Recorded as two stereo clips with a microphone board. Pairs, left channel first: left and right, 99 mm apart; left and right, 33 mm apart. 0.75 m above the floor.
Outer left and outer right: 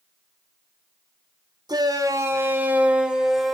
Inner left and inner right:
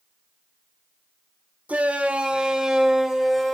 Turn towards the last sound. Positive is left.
turn(degrees=0)  # may be behind; listen again after turning